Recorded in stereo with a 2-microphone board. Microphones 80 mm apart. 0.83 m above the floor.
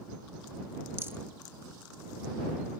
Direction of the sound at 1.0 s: 30° right (ahead or behind).